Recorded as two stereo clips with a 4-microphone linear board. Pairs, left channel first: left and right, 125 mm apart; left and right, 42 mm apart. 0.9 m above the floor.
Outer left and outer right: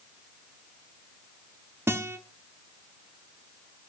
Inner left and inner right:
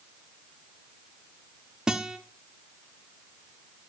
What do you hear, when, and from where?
1.9 s a guitar: 20° right (ahead or behind), 1.0 m